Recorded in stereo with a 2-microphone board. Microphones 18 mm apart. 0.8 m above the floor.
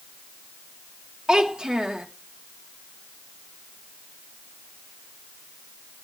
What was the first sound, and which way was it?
A child speaking, 50° right (ahead or behind).